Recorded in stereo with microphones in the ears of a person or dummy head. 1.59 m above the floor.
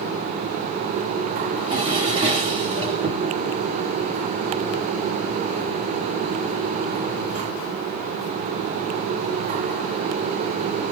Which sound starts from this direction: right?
A drawer, at 1.5 s.